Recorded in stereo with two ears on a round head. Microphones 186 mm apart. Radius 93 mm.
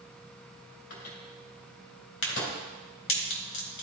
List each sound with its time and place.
0.9 s a microwave: 70° left (ahead or behind), 2.5 m
2.2 s a crack: 65° left (ahead or behind), 1.8 m